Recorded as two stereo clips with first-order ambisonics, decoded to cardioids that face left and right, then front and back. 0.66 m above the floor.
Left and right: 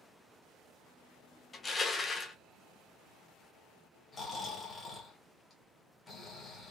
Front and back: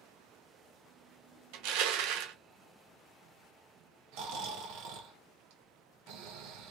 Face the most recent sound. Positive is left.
turn(degrees=165)